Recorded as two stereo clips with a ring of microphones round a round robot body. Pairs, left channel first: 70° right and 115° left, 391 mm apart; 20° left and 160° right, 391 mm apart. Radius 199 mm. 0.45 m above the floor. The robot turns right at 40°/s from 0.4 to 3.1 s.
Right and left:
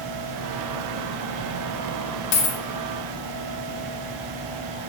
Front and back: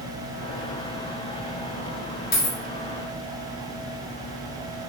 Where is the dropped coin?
45° right, 0.8 m; by 2.6 s 35° right, 0.8 m.